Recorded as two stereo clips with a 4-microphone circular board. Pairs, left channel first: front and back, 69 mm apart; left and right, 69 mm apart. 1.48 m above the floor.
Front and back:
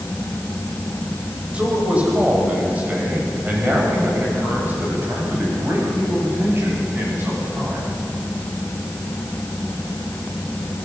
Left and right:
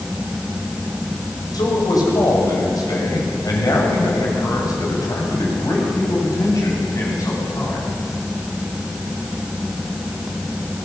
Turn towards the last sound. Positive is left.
turn(degrees=125)